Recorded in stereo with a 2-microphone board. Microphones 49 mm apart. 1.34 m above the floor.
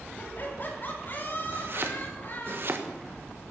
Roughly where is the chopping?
Right.